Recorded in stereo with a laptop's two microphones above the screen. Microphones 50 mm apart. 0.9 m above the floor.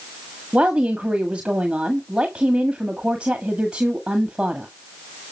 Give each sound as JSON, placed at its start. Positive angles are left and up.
{"t": 0.5, "sound": "a woman speaking", "side_deg": -20, "distance_m": 1.6}